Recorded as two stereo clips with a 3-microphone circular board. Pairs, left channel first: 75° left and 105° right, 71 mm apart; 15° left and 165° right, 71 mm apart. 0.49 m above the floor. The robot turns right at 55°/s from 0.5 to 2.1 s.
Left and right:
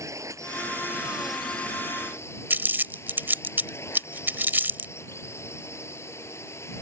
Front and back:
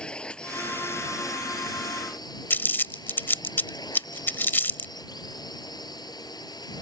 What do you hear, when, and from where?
0.0 s a drone: 65° right; by 6.8 s 25° left
2.5 s crumpling: 45° right